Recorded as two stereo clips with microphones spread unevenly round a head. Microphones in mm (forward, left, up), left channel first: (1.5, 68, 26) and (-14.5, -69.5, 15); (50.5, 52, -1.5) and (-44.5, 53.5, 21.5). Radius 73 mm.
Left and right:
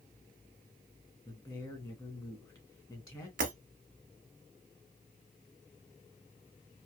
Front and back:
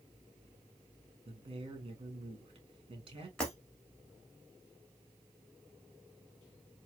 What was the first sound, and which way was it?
A man speaking, 150° left.